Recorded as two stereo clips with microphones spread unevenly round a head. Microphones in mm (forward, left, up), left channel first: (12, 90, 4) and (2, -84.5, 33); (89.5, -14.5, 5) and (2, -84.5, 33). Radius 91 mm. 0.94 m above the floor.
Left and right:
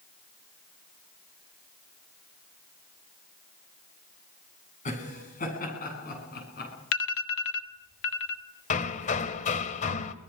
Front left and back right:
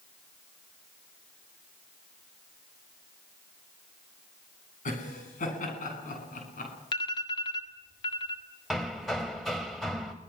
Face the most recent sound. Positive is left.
turn(degrees=140)